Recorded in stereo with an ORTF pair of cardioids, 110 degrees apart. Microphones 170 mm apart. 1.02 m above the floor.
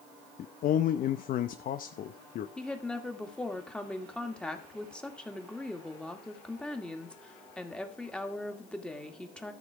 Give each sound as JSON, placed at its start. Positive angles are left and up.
{"t": 0.4, "sound": "a man speaking", "azimuth_deg": 55, "distance_m": 0.8}
{"t": 2.6, "sound": "a woman speaking", "azimuth_deg": 5, "distance_m": 2.0}